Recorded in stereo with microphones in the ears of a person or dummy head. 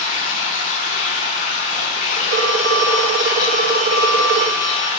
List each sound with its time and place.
0.0 s running water: 50° left (ahead or behind), 1.8 m
2.3 s a phone ringing: 45° right (ahead or behind), 0.7 m